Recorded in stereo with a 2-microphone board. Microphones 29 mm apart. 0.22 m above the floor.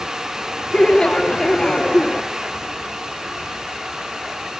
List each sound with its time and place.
0.7 s laughter: 30° left (ahead or behind), 1.1 m